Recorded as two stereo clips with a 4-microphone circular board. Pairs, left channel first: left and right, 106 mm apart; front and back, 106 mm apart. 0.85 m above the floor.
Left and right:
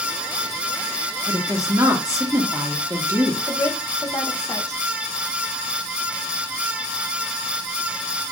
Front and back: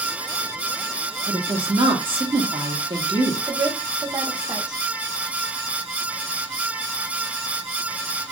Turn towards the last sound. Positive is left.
turn(degrees=135)